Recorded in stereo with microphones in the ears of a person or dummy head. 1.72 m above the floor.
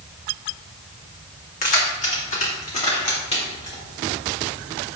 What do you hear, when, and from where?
1.6 s keys jangling: 45° left (ahead or behind), 2.5 m; by 3.8 s 30° left (ahead or behind), 4.5 m